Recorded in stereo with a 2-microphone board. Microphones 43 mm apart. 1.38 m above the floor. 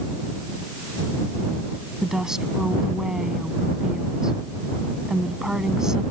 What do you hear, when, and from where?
2.0 s a woman speaking: 15° right (ahead or behind)